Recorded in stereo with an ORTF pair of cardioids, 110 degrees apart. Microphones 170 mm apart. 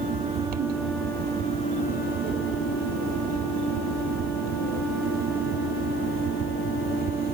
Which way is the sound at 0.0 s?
60° right.